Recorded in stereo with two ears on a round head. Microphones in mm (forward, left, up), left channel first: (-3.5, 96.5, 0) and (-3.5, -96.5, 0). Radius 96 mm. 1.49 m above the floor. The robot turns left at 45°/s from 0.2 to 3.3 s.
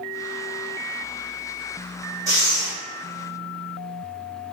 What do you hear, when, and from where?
2.3 s breathing: 15° right (ahead or behind), 1.4 m; by 2.7 s 35° right (ahead or behind), 1.4 m